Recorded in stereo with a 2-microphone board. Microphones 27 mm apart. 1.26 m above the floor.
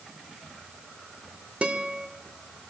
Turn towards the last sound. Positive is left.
turn(degrees=-65)  # may be behind; listen again after turning